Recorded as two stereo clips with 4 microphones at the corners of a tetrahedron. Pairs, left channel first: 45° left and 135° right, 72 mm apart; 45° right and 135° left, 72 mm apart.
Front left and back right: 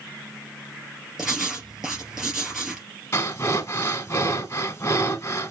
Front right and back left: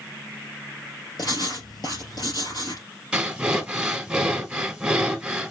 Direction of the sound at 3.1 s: 65° left.